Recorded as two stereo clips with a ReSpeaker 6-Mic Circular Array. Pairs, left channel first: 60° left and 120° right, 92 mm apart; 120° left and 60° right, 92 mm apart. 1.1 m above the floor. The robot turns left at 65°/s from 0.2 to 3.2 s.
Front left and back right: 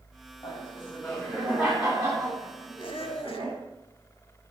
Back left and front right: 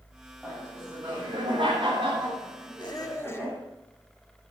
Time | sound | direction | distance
0.4 | laughter | 25° left | 8 m
2.8 | a squeak | 85° left | 1.3 m